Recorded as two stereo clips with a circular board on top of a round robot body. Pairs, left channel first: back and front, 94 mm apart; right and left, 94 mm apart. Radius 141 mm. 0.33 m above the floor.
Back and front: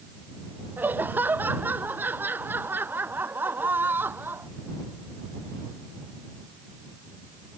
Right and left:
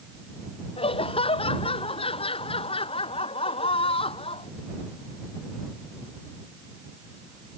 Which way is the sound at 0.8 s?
70° right.